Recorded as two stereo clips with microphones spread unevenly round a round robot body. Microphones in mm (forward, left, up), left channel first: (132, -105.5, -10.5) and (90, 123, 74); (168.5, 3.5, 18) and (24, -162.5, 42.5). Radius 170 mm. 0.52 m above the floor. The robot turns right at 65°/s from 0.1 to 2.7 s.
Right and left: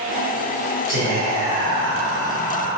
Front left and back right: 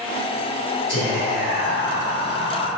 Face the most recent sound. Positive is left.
turn(degrees=-115)